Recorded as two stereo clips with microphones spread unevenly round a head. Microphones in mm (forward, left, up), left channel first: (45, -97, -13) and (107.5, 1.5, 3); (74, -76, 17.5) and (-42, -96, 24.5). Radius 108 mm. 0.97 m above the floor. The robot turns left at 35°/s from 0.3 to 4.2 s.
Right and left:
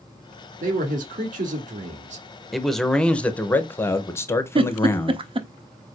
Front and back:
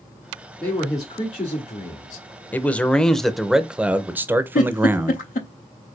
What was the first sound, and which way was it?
A man speaking, 95° left.